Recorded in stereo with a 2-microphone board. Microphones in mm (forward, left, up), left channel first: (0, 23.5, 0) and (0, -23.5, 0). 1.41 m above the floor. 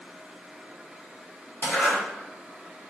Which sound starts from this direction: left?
A zipper, at 1.6 s.